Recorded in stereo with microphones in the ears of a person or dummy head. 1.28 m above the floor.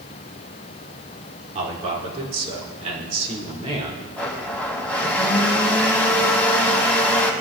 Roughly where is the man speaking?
Right.